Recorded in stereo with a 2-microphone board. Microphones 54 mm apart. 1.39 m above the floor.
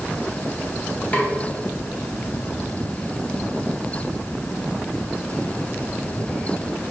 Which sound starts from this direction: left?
A snare drum, at 1.1 s.